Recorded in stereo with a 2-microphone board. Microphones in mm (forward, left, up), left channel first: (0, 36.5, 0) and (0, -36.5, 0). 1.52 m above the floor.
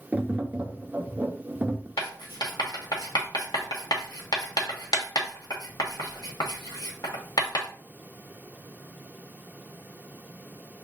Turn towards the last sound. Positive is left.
turn(degrees=70)  # may be behind; listen again after turning